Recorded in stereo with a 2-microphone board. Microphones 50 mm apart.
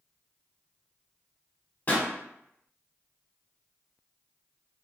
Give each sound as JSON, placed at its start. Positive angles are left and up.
{"t": 1.9, "sound": "a pop", "side_deg": 35, "distance_m": 0.8}